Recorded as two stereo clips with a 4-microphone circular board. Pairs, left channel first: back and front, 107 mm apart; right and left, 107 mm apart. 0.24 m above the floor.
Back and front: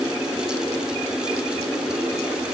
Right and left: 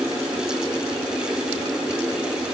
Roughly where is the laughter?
I don't hear laughter.